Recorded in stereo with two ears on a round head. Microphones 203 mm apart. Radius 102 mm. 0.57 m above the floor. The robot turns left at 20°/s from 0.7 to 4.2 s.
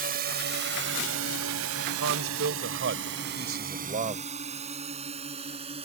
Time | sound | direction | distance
0.0 | a drone | 40° right (ahead or behind) | ?
2.0 | a man speaking | 100° right | ?